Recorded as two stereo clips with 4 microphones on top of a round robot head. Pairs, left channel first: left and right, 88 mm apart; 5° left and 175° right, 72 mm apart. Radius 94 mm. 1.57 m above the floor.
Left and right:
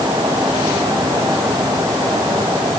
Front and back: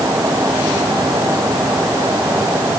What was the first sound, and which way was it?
Only background noise.